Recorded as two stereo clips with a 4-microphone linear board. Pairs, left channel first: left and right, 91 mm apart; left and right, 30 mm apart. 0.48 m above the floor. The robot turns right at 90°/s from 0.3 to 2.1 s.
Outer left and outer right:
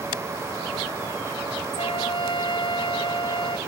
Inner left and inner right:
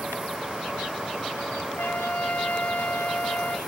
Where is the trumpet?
90° left; by 3.6 s 120° left.